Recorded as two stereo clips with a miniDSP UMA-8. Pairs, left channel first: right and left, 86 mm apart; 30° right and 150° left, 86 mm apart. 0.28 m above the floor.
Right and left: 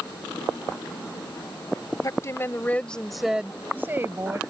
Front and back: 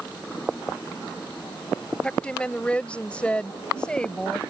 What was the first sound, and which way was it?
A woman speaking, 100° right.